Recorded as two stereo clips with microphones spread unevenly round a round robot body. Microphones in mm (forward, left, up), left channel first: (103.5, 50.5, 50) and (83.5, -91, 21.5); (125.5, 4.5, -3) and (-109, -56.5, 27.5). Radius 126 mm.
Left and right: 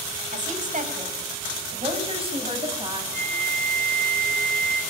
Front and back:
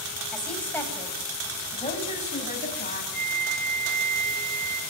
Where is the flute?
110° right, 3 m.